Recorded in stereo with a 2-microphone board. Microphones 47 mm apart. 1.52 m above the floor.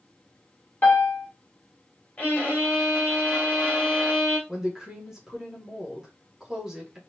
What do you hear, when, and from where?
0.8 s a piano: 40° left (ahead or behind), 1.3 m
2.2 s a violin: 25° left (ahead or behind), 2.5 m
4.5 s a woman speaking: 10° right (ahead or behind), 1.7 m